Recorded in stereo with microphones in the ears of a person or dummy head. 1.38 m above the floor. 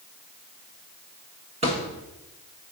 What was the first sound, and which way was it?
A thud, 40° right (ahead or behind).